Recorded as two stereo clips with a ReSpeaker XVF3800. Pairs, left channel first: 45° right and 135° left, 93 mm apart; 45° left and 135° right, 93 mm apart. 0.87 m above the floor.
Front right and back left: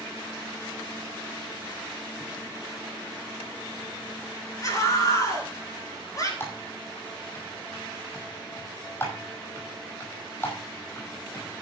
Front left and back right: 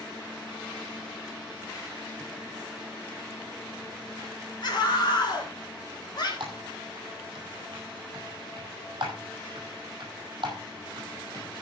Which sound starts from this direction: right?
Typing on a keyboard, at 6.4 s.